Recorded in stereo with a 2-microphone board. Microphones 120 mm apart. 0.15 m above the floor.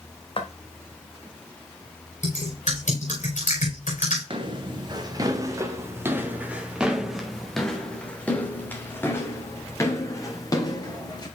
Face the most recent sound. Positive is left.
turn(degrees=30)  # may be behind; listen again after turning